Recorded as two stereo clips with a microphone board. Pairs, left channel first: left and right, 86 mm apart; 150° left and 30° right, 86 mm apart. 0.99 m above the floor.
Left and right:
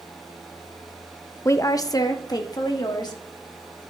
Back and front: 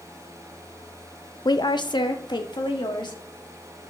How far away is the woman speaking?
About 0.5 m.